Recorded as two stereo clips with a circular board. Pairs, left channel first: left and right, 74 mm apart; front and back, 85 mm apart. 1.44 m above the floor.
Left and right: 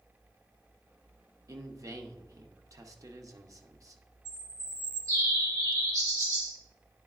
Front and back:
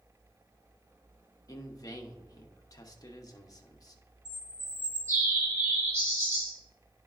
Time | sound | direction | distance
1.5 | a man speaking | 45° right | 0.8 m
4.2 | a bird | 120° right | 2.5 m